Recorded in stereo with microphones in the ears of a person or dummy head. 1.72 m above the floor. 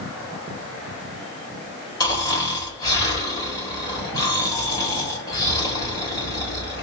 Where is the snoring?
15° left (ahead or behind), 1.7 m.